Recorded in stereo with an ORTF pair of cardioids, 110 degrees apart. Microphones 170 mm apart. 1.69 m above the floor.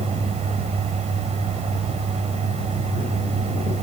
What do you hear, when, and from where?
0.0 s a fan: 40° right